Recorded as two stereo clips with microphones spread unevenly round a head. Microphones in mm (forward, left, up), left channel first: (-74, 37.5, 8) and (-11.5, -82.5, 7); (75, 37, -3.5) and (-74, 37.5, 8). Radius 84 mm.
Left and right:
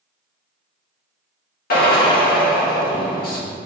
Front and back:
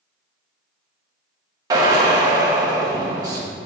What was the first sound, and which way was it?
A drill, 115° left.